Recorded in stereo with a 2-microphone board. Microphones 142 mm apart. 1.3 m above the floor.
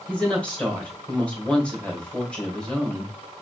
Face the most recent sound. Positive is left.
turn(degrees=10)  # may be behind; listen again after turning